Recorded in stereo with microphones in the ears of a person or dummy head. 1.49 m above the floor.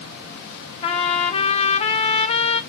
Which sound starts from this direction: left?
A trumpet, at 0.8 s.